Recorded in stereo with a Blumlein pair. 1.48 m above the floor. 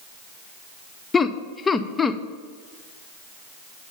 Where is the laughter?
15° left, 0.6 m.